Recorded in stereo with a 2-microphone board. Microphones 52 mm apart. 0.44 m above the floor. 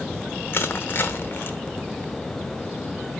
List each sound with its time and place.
0.5 s crushing: 40° left (ahead or behind), 1.0 m